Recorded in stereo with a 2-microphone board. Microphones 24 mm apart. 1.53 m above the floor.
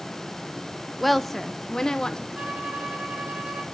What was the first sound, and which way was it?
A woman speaking, centre (ahead or behind).